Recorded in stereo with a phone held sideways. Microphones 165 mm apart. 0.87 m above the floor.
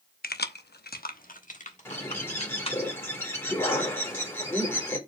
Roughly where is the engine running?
I don't hear an engine running.